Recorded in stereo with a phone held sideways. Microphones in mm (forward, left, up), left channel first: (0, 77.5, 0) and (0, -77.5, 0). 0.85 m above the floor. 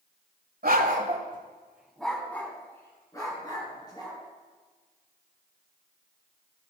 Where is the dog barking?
70° right (ahead or behind), 1.4 m; by 4.2 s 30° left (ahead or behind), 4.5 m.